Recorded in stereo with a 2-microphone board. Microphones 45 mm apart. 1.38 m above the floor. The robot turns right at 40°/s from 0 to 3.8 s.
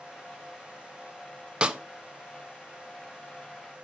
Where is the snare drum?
20° right (ahead or behind), 0.5 m; by 1.8 s 15° right (ahead or behind), 0.5 m.